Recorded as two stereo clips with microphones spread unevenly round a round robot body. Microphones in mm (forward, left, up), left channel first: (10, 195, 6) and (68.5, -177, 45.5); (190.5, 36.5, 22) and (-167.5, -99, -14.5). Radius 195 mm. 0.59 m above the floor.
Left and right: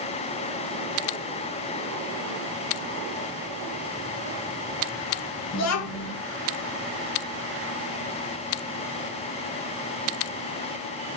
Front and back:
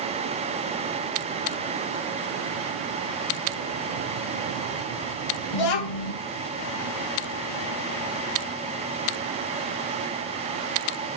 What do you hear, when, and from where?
5.5 s a child speaking: 55° left, 1.4 m